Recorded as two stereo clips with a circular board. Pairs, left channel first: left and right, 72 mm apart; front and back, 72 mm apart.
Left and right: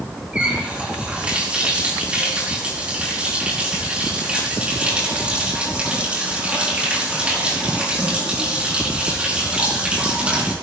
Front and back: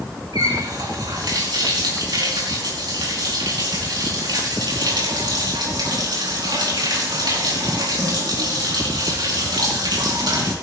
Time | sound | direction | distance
0.3 | a running tap | 165° right | 4.5 m